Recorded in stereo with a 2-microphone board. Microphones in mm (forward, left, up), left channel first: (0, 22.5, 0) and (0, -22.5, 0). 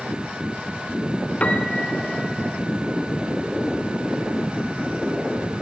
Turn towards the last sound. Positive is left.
turn(degrees=30)  # may be behind; listen again after turning